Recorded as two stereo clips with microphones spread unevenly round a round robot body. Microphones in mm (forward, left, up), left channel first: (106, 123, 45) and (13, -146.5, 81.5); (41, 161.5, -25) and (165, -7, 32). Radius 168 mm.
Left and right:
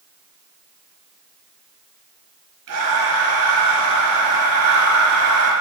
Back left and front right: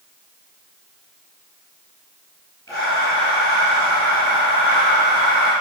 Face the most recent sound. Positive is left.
turn(degrees=-150)